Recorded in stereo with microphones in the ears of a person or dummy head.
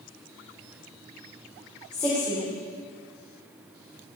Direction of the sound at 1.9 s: 10° left (ahead or behind).